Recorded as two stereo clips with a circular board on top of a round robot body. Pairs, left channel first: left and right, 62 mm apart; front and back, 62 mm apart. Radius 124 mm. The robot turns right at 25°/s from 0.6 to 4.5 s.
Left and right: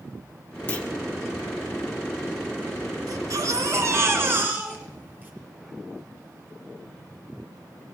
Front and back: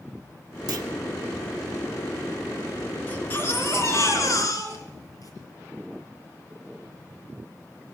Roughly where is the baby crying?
Ahead right.